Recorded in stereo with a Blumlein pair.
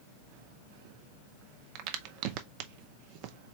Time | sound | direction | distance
1.8 | a crack | 45° right | 0.6 m